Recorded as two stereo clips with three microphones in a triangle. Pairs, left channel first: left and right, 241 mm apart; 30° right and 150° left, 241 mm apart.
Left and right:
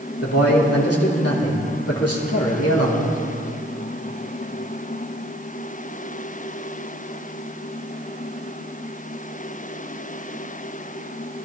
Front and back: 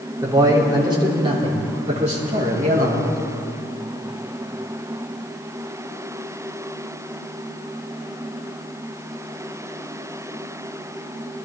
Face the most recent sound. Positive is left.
turn(degrees=100)